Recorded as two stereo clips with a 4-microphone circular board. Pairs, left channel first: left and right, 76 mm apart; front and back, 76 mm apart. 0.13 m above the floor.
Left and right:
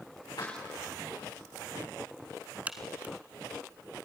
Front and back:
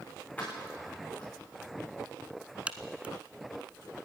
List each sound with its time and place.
0.4 s keys jangling: 70° left, 6.5 m
2.7 s a crack: 130° right, 1.2 m